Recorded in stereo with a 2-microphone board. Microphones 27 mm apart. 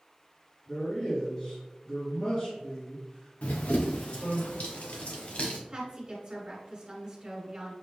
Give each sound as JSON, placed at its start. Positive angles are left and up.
{"t": 0.7, "sound": "a man speaking", "side_deg": 35, "distance_m": 2.0}
{"t": 3.4, "sound": "running footsteps", "side_deg": 60, "distance_m": 0.9}
{"t": 5.7, "sound": "a woman speaking", "side_deg": -35, "distance_m": 1.6}